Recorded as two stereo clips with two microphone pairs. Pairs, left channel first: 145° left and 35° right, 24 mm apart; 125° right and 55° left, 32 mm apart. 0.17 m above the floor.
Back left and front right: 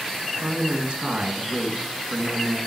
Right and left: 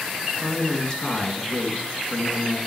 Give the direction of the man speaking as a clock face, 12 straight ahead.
2 o'clock.